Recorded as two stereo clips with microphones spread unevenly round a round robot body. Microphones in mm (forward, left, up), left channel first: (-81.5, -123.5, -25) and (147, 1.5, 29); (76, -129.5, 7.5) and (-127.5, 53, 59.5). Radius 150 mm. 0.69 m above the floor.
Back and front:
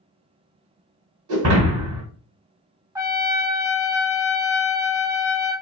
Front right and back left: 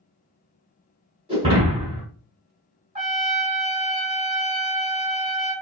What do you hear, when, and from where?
1.3 s breaking glass: 65° left, 1.3 m
3.0 s a trumpet: 95° left, 0.5 m